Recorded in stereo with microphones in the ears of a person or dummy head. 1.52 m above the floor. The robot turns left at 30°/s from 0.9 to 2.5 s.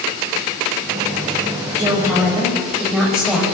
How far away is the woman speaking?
About 6.5 m.